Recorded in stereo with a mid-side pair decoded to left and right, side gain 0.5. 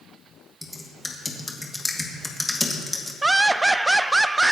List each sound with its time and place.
0.6 s typing on a keyboard: 15° left, 2 m
3.2 s laughter: 15° right, 0.5 m